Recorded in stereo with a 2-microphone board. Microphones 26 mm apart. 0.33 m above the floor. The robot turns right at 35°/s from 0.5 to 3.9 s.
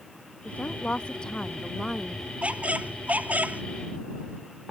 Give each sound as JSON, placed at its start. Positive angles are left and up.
{"t": 0.5, "sound": "a woman speaking", "azimuth_deg": 120}
{"t": 2.4, "sound": "a squeak", "azimuth_deg": -120}